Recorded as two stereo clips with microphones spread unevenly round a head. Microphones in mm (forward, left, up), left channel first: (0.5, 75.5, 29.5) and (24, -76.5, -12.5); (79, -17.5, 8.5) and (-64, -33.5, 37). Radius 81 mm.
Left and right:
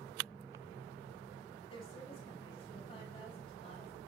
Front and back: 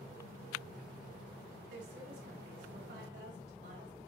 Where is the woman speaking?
160° left, 5.5 m.